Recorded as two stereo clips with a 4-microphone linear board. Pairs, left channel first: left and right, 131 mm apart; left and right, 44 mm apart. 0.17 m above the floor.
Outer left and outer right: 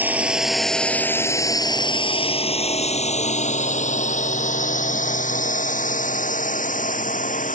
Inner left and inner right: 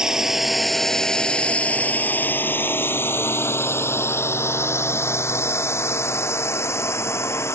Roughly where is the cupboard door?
I don't hear a cupboard door.